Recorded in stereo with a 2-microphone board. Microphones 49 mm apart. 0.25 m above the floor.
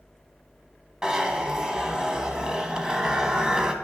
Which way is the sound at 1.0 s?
15° right (ahead or behind).